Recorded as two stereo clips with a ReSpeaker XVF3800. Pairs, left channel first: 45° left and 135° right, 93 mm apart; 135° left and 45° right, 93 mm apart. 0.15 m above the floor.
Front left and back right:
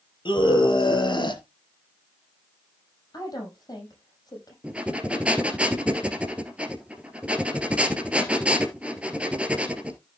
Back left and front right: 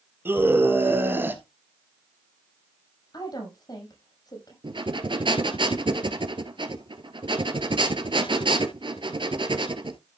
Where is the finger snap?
No finger snap in this recording.